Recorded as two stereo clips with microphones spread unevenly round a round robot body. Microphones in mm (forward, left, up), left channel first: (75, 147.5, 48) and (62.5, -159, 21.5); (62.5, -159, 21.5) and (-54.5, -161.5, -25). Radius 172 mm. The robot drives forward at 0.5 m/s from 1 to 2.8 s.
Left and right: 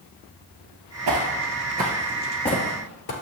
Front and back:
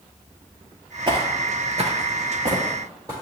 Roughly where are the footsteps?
Behind right.